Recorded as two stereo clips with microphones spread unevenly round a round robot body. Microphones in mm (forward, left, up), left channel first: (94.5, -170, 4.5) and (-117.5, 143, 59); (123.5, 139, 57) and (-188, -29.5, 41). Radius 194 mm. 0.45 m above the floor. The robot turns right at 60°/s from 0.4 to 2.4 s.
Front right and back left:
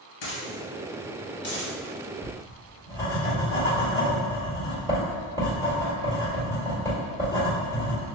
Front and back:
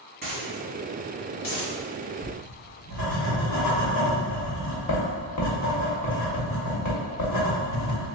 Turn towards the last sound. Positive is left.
turn(degrees=40)